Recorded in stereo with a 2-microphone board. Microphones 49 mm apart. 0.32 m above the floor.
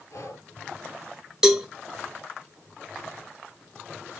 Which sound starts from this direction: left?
Breathing, at 0.1 s.